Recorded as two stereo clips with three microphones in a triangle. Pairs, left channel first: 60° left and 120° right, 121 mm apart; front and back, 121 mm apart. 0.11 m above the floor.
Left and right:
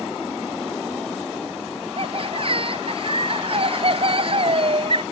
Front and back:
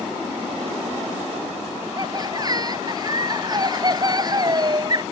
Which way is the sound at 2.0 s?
135° right.